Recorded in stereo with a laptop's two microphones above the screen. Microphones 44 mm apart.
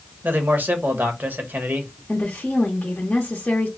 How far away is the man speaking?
About 0.9 m.